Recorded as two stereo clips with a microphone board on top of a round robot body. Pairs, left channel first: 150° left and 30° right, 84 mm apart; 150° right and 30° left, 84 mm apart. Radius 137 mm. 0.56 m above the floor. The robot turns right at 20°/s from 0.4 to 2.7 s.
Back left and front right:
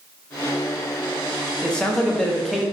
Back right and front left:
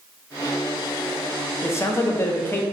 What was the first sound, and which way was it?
A man speaking, 140° right.